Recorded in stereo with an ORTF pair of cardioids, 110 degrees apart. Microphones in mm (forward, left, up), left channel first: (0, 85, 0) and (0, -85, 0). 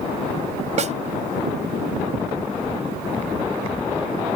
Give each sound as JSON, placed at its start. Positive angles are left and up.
{"t": 0.8, "sound": "a snare drum", "azimuth_deg": -45}